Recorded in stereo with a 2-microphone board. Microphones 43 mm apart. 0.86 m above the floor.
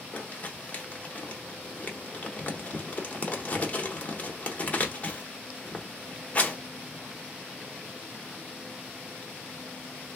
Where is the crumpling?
35° left (ahead or behind), 1.0 m.